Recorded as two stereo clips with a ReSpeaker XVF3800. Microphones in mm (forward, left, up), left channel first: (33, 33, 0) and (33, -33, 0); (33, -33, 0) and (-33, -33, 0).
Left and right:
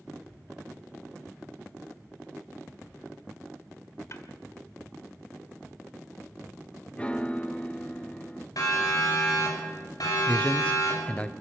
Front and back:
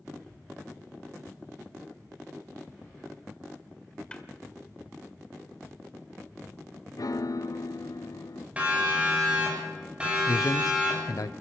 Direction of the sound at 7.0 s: 20° left.